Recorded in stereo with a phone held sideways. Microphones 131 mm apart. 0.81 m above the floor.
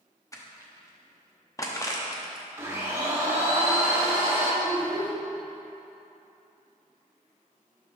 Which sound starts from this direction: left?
Crushing, at 0.3 s.